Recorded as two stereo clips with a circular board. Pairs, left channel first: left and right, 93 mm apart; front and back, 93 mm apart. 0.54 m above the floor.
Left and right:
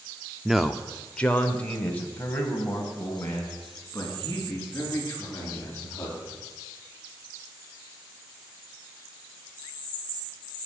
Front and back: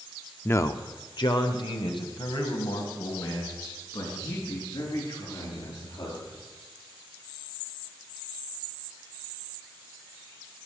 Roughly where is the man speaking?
Ahead.